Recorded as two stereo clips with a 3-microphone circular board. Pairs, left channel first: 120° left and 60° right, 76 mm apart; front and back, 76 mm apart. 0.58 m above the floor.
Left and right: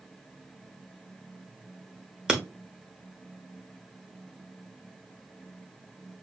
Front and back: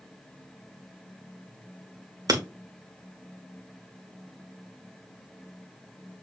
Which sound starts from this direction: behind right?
Breaking glass, at 2.3 s.